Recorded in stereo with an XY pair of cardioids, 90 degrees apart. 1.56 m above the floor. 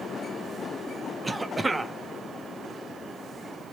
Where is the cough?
20° right, 0.6 m.